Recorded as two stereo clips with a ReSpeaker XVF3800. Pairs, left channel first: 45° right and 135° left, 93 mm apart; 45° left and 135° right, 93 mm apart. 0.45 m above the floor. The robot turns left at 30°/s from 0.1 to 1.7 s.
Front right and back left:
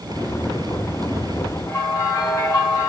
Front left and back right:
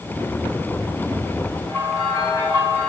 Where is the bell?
10° left, 3 m.